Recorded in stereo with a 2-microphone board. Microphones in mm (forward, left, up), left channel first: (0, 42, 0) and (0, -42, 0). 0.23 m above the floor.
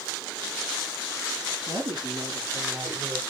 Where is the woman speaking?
65° right (ahead or behind), 4.5 m; by 3.2 s 50° right (ahead or behind), 5 m.